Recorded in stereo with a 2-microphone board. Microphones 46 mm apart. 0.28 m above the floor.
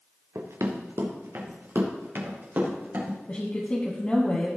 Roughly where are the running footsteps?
Right.